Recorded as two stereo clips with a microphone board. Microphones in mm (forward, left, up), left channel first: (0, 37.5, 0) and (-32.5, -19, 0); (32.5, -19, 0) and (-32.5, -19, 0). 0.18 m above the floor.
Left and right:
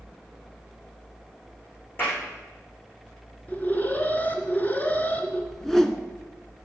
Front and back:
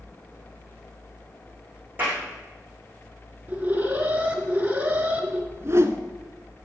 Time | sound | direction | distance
2.0 | a clap | 115° left | 9 m
3.5 | an alarm | 120° left | 2.0 m
5.5 | a whoosh | 140° left | 1.2 m